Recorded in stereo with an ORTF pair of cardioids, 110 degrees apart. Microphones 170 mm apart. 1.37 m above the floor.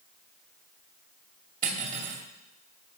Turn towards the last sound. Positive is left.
turn(degrees=-50)